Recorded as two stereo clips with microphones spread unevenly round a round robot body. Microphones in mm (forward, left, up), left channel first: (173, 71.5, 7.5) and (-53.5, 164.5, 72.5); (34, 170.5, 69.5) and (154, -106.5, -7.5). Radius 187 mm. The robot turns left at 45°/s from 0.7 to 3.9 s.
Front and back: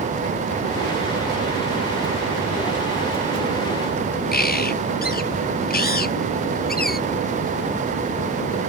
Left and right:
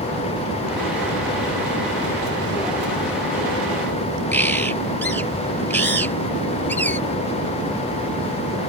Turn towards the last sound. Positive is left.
turn(degrees=30)